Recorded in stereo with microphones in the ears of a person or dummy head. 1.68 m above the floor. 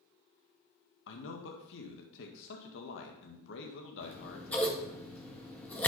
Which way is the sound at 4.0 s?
5° left (ahead or behind).